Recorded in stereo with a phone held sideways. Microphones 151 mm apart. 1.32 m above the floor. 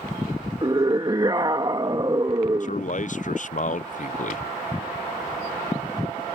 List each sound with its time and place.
0.6 s a scream: 30° right (ahead or behind)
2.6 s a man speaking: 55° left (ahead or behind)